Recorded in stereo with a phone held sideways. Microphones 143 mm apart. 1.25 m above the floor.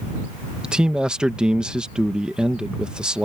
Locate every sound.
0.6 s a man speaking: 5° right (ahead or behind)